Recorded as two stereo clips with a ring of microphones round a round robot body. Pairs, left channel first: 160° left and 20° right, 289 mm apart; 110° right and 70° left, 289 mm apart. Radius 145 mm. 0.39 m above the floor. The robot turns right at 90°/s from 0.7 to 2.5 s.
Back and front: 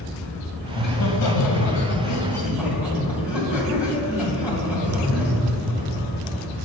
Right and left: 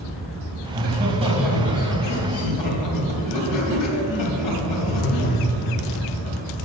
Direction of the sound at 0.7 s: 90° left.